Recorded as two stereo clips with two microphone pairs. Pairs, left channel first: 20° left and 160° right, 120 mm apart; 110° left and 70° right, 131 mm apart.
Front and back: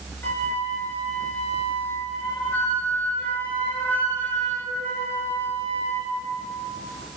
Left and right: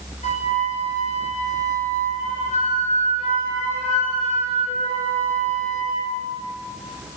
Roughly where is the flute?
Left.